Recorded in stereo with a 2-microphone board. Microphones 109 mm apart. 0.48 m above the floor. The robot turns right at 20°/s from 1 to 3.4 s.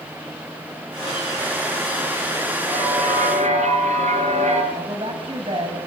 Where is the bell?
70° right (ahead or behind), 5.5 m; by 4.6 s 80° right, 5.5 m.